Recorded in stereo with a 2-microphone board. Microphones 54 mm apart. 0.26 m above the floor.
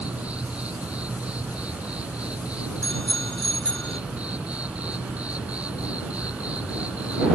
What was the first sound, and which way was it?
An insect, 25° right (ahead or behind).